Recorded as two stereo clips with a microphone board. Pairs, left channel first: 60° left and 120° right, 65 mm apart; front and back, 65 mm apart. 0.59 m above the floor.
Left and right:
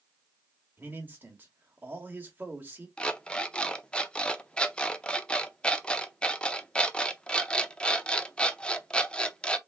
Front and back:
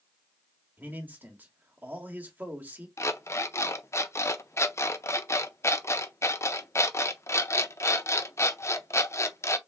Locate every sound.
0.8 s a man speaking: 145° right, 1.3 m
3.0 s an alarm clock: 10° right, 0.5 m